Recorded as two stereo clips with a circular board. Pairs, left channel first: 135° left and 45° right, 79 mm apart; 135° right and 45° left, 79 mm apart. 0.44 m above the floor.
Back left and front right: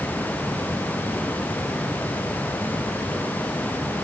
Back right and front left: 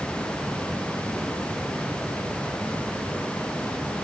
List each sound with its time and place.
Only background noise.